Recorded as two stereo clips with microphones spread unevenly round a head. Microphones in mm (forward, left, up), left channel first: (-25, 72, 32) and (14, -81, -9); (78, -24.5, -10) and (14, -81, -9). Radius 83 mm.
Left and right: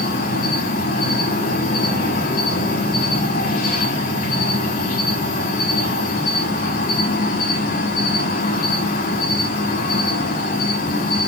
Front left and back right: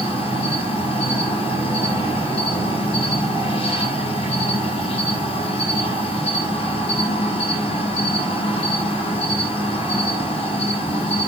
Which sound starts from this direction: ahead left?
An insect, at 0.0 s.